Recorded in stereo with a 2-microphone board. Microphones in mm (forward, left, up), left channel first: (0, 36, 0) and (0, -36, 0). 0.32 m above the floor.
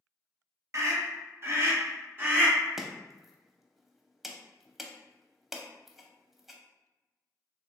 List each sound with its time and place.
0.7 s a scream: 45° right (ahead or behind), 1.2 m; by 2.6 s 30° right (ahead or behind), 2.0 m
2.8 s chopping: 5° right (ahead or behind), 0.6 m